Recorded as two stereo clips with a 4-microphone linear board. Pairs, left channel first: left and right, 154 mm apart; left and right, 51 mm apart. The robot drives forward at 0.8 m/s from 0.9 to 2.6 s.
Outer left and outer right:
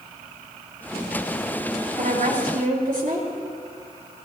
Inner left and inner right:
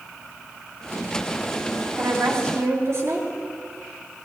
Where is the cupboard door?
I don't hear a cupboard door.